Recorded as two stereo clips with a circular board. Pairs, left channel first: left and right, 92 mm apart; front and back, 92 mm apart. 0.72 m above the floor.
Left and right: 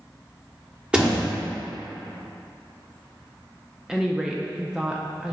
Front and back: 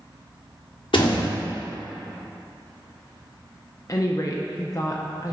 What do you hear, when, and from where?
0.9 s a door slam: 15° right, 1.2 m
3.9 s a woman speaking: 15° right, 0.6 m